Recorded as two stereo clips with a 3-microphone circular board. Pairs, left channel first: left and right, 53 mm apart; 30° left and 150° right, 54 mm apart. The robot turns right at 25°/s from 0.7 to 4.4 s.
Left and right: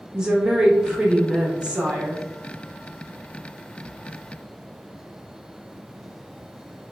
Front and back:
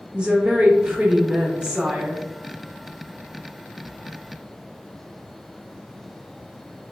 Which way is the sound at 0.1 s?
135° right.